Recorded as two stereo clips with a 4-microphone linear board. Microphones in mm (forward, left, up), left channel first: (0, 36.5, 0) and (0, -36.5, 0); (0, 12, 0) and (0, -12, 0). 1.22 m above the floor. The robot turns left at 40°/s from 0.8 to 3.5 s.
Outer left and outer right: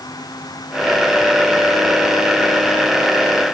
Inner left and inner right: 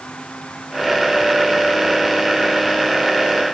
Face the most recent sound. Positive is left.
No sound to turn to.